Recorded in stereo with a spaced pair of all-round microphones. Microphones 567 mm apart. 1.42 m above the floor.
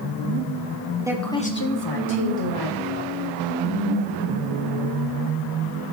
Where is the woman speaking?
5° right (ahead or behind), 1.1 m; by 3.1 s 80° left, 1.6 m.